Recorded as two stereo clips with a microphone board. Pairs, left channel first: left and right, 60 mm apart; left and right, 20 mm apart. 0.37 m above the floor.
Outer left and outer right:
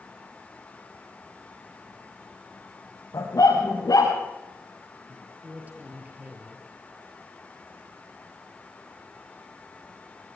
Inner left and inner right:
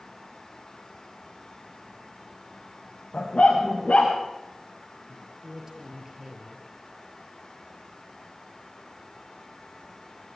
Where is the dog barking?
85° left, 6.5 m.